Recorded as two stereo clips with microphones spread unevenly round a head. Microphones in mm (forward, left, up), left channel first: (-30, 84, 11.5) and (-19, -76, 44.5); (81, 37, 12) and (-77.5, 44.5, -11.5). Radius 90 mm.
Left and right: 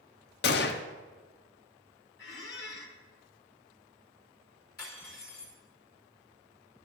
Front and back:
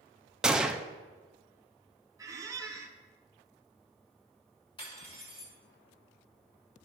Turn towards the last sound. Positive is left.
turn(degrees=55)